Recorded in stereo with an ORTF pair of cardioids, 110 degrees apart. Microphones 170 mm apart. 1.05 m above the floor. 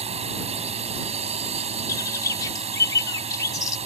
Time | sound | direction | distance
0.0 | a drone | 40° right | ?
1.9 | a bird | 20° left | ?